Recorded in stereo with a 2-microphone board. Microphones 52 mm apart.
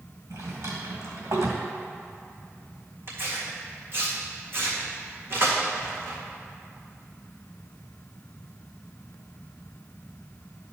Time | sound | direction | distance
0.3 | a drawer | 70° right (ahead or behind) | 2 m
3.1 | tearing paper | 50° right (ahead or behind) | 1.9 m